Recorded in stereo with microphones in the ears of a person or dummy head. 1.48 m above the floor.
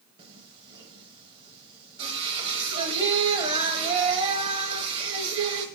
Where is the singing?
25° right (ahead or behind), 1.0 m.